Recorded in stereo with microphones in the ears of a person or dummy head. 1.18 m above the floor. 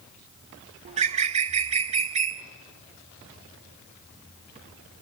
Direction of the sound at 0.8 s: 40° right (ahead or behind).